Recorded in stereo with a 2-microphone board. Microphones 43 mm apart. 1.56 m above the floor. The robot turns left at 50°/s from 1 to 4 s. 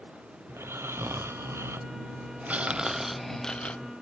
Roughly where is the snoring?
Right.